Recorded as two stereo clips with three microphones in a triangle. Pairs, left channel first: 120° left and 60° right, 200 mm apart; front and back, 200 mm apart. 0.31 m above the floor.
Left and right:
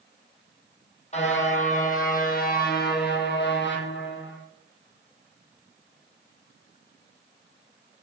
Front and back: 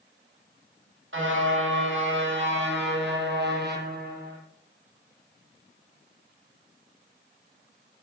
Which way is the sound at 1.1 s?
175° left.